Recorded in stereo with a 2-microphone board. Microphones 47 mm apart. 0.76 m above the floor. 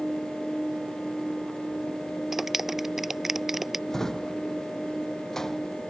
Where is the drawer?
10° left (ahead or behind).